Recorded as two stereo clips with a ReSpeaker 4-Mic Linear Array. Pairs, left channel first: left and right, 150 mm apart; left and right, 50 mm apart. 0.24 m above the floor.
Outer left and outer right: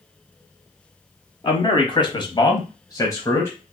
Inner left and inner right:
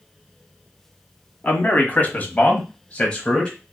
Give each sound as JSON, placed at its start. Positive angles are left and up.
{"t": 1.4, "sound": "a man speaking", "side_deg": 30, "distance_m": 1.4}